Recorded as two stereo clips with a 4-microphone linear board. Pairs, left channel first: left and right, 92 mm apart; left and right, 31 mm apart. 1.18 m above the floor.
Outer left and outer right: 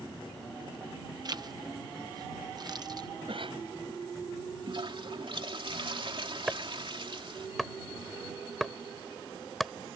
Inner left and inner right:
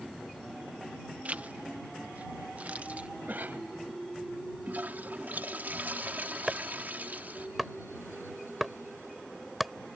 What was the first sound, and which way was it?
A zipper, 50° right (ahead or behind).